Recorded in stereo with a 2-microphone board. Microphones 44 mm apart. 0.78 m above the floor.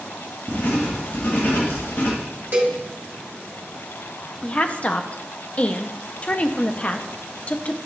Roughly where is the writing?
Left.